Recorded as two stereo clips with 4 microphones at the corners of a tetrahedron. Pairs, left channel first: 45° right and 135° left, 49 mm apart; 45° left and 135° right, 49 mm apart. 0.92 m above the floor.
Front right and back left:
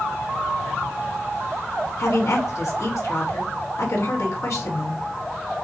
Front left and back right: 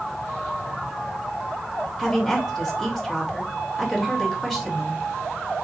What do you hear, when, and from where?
2.0 s a woman speaking: 35° right, 2 m